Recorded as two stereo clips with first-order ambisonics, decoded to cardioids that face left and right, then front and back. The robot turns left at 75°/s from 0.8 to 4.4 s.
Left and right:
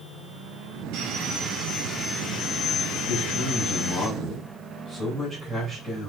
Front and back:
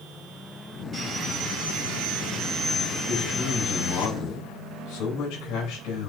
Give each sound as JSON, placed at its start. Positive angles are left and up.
{"t": 0.9, "sound": "sawing", "azimuth_deg": -100, "distance_m": 4.0}
{"t": 3.1, "sound": "a man speaking", "azimuth_deg": 95, "distance_m": 6.0}